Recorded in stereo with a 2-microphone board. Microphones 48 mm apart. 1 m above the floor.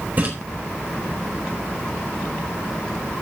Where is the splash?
35° right (ahead or behind), 4.5 m.